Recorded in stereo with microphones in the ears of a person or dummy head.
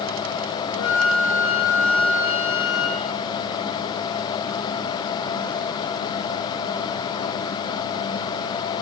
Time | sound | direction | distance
0.7 | a flute | 80° right | 3.5 m